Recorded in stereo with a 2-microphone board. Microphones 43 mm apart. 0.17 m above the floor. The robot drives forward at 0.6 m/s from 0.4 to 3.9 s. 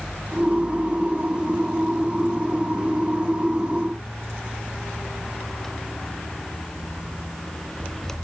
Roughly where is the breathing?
I don't hear breathing.